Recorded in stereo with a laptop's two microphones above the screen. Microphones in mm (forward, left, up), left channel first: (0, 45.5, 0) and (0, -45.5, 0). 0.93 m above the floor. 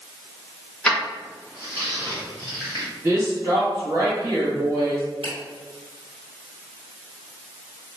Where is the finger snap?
80° right, 1.0 m.